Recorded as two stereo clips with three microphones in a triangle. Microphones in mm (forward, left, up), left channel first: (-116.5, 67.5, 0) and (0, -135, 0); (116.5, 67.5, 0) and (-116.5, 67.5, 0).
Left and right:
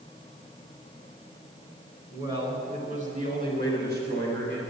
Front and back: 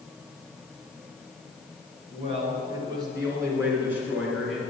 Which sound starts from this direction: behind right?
A man speaking, at 2.1 s.